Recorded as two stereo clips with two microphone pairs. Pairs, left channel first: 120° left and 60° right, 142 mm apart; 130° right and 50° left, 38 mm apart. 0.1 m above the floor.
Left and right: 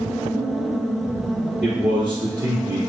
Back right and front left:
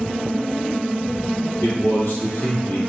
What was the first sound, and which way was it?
A man speaking, 140° right.